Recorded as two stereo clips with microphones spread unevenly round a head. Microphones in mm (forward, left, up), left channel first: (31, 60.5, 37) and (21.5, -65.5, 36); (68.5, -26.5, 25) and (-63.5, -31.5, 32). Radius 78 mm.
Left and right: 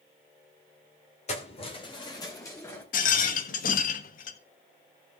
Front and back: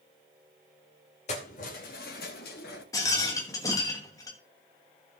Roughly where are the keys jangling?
Ahead left.